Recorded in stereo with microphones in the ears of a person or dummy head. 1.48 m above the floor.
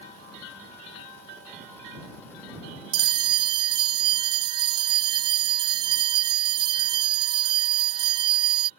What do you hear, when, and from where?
2.9 s a bell: 25° right (ahead or behind)